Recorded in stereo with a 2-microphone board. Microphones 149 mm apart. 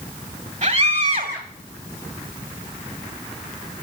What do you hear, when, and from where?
0.6 s a scream: 55° right (ahead or behind), 2.5 m